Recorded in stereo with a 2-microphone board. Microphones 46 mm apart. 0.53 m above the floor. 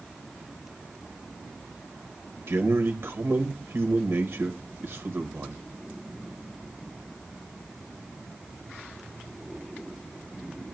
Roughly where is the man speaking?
Right.